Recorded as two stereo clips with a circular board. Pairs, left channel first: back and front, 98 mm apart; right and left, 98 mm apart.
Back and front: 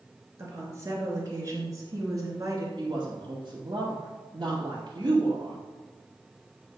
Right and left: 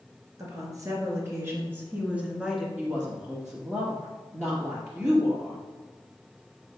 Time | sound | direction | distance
0.4 | a woman speaking | 50° left | 2.5 m
2.8 | a woman speaking | 30° left | 2.5 m